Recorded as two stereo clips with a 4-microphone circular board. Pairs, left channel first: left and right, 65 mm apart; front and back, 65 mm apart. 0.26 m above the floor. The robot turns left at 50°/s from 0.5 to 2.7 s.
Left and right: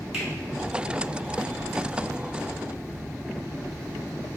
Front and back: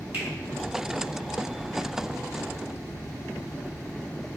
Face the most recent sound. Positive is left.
turn(degrees=100)